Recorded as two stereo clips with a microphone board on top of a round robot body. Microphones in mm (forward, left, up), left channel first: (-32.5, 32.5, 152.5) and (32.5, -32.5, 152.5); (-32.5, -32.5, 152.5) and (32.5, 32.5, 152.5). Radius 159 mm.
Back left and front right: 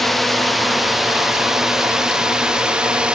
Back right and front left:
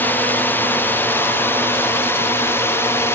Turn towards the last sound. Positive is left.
turn(degrees=-115)